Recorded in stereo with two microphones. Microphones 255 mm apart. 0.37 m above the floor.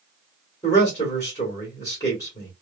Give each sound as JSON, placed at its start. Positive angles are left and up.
{"t": 0.6, "sound": "a man speaking", "side_deg": 15, "distance_m": 1.4}